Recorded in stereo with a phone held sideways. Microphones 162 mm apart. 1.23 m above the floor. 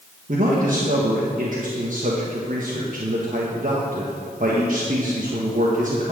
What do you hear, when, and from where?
0.3 s a man speaking: 55° right (ahead or behind), 1.3 m